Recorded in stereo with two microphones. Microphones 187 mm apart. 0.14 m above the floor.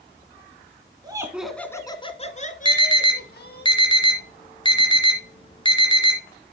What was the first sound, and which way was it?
Laughter, 20° right (ahead or behind).